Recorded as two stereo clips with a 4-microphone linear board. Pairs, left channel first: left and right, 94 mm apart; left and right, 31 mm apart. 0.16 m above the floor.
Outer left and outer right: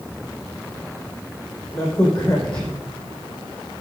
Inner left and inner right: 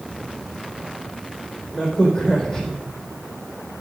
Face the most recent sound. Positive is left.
turn(degrees=10)  # may be behind; listen again after turning